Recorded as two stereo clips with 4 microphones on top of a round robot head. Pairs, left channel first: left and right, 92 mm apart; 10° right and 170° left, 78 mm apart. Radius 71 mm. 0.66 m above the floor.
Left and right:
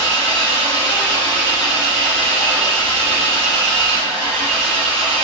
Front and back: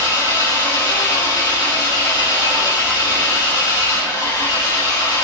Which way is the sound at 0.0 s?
55° right.